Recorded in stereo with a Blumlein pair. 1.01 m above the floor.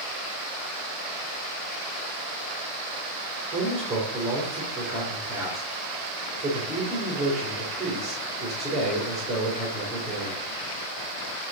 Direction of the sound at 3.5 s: 15° right.